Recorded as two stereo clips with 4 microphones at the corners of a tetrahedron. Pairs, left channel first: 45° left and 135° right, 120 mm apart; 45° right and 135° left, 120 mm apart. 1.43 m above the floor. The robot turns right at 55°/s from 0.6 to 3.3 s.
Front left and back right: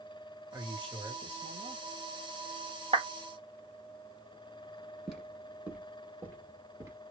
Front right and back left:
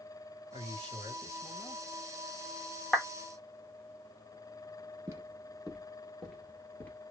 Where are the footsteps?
145° left, 1.5 m; by 7.0 s 100° right, 1.6 m.